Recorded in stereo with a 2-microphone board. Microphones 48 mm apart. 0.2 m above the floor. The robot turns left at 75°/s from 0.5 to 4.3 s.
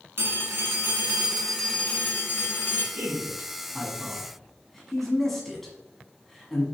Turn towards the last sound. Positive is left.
turn(degrees=5)  # may be behind; listen again after turning